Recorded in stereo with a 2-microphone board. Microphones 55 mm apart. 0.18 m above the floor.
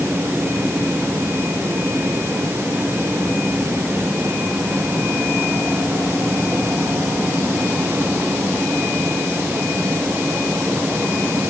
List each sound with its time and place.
Only background noise.